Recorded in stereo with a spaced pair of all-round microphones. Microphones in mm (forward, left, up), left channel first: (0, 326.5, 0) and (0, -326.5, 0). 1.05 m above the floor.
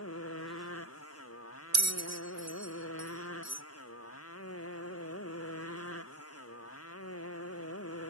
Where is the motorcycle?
20° left (ahead or behind).